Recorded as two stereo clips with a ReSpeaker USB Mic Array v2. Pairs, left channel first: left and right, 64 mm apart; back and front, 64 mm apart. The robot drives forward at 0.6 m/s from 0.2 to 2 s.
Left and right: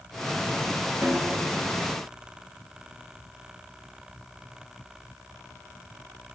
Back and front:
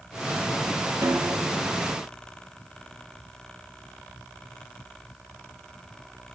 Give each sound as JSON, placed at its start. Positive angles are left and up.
{"t": 1.0, "sound": "a snare drum", "azimuth_deg": -25, "distance_m": 1.0}